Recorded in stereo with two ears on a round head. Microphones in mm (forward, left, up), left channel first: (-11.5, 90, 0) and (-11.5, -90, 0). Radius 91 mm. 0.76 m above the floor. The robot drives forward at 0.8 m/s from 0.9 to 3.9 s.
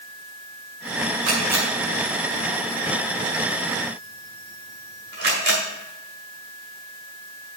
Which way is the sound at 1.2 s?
80° right.